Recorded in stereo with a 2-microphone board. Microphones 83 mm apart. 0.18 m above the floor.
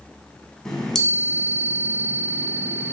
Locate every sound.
0.7 s a chime: 5° left (ahead or behind), 0.9 m